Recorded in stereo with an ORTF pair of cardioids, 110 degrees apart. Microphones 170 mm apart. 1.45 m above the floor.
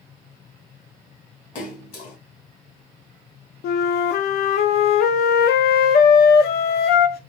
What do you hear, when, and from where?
1.6 s a splash: 55° left, 2.0 m
3.6 s a flute: 70° left, 0.6 m